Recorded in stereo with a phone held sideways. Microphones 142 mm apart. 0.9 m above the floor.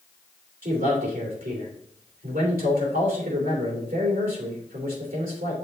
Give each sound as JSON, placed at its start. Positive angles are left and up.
{"t": 0.6, "sound": "a man speaking", "side_deg": -80, "distance_m": 3.0}